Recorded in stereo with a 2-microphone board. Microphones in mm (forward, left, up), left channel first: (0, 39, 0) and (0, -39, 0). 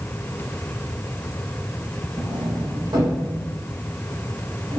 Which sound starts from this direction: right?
A sliding door, at 2.2 s.